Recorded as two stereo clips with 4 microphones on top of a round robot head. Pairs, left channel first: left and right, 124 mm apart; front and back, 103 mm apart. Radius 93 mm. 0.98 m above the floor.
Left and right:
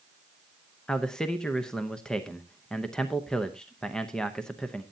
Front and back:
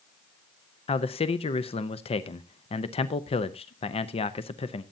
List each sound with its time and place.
0.9 s a man speaking: 5° left, 0.8 m